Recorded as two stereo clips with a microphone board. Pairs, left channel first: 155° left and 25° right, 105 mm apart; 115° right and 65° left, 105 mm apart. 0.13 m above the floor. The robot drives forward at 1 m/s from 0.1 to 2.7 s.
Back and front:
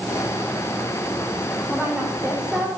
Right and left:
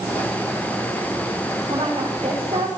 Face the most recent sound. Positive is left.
turn(degrees=65)